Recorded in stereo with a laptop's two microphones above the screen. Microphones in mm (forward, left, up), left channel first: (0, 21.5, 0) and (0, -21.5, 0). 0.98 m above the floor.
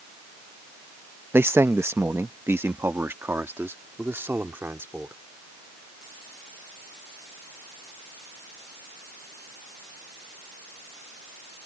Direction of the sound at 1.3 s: 60° right (ahead or behind).